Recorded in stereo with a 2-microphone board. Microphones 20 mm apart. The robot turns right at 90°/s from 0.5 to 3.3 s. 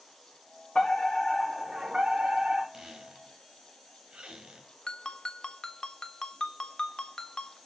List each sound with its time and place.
0.8 s a fire alarm: 115° left, 6 m; by 2.6 s 75° right, 6 m
2.7 s a squeak: 35° right (ahead or behind), 3 m; by 4.7 s 70° right (ahead or behind), 3 m
4.9 s a ringtone: 45° left (ahead or behind), 1.4 m